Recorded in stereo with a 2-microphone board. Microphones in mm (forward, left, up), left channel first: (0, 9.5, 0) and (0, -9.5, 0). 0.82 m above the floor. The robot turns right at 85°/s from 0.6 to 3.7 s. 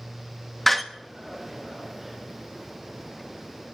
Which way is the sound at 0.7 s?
10° left (ahead or behind).